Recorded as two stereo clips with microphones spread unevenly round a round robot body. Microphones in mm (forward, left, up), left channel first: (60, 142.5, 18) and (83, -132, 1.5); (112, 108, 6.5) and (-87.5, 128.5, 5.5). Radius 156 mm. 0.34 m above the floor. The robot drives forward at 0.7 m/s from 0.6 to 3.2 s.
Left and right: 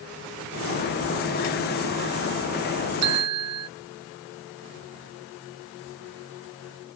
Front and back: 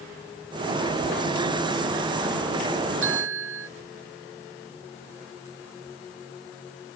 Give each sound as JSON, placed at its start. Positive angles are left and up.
{"t": 3.0, "sound": "a bell", "azimuth_deg": -130}